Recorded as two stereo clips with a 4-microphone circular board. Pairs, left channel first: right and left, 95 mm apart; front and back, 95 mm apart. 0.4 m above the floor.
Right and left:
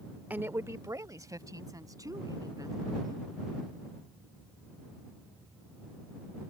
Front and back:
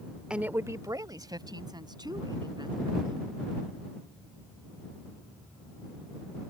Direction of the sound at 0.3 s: 120° left.